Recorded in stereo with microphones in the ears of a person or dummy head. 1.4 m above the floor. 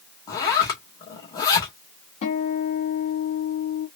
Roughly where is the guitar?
Left.